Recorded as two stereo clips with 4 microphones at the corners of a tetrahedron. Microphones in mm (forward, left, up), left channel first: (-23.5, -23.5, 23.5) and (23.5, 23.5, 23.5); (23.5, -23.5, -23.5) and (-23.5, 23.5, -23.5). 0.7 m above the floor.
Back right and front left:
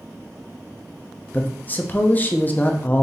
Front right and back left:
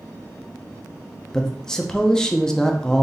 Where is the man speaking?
115° right, 0.5 m.